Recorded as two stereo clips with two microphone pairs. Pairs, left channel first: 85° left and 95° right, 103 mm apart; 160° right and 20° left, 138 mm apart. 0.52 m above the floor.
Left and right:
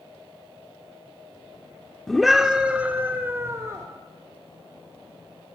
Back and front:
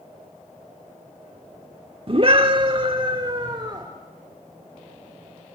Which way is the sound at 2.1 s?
Straight ahead.